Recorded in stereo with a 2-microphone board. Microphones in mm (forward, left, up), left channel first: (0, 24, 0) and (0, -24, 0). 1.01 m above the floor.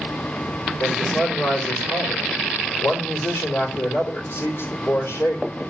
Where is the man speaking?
65° left (ahead or behind), 3.5 m.